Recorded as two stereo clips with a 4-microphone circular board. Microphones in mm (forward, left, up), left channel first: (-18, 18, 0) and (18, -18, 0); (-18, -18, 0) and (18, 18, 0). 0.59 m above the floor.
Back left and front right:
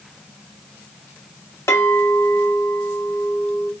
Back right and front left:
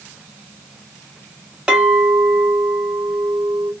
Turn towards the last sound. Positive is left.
turn(degrees=120)